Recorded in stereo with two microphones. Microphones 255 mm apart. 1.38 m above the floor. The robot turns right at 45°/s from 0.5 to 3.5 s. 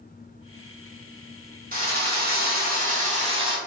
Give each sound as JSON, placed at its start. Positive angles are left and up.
{"t": 1.7, "sound": "a drill", "azimuth_deg": -115, "distance_m": 0.8}